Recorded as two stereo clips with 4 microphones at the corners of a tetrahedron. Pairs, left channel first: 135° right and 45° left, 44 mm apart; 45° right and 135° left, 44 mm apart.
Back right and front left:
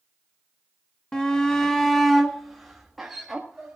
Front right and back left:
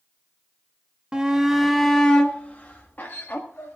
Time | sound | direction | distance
1.1 | a shout | straight behind | 1.1 m